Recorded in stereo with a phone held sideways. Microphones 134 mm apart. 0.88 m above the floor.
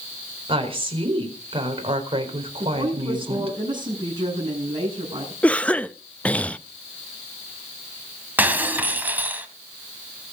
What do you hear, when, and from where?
0.5 s a woman speaking: 40° right (ahead or behind), 4 m
2.6 s a woman speaking: 35° right (ahead or behind), 7 m
5.4 s a cough: 10° left (ahead or behind), 0.7 m
8.4 s breaking glass: 15° right (ahead or behind), 1.8 m